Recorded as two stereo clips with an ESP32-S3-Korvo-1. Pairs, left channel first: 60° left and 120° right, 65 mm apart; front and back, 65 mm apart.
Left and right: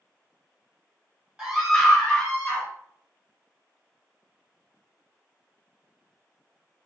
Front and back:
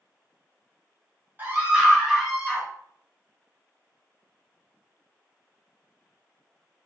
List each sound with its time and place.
1.4 s a scream: 170° left, 1.2 m; by 2.7 s 65° left, 1.2 m